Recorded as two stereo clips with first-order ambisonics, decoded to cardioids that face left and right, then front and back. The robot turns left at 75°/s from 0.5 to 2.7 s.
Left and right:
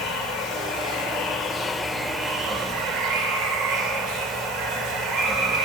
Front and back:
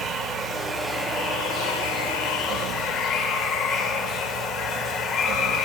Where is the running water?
115° left, 2 m; by 5.7 s 50° right, 2 m.